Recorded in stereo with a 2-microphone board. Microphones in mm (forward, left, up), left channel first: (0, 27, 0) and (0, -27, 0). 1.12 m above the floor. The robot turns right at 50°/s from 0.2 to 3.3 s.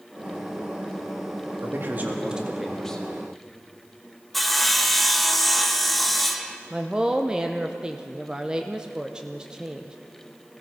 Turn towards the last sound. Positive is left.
turn(degrees=-15)  # may be behind; listen again after turning